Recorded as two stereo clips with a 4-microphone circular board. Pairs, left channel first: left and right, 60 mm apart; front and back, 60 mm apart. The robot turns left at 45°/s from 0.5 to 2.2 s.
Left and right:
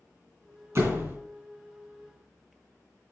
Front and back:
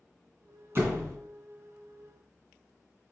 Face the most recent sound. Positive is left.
turn(degrees=165)